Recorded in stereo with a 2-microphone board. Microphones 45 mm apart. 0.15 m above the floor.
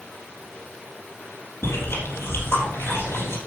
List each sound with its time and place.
1.6 s chewing: 75° left (ahead or behind), 4 m